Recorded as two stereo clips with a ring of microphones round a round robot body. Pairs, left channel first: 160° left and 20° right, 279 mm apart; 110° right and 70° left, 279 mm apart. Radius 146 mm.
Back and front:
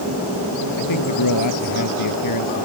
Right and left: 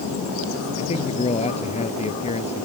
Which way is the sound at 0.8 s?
Straight behind.